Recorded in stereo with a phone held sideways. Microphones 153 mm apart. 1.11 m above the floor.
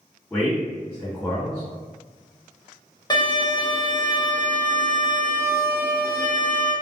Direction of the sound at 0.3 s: 15° left (ahead or behind).